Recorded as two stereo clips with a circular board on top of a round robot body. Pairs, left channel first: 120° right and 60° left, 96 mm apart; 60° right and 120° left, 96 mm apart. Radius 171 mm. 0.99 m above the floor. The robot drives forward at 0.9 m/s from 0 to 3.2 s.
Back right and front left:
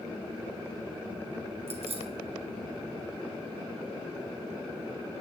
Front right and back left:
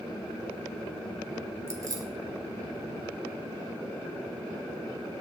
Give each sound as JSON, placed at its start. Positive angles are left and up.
{"t": 1.7, "sound": "keys jangling", "azimuth_deg": 60, "distance_m": 1.7}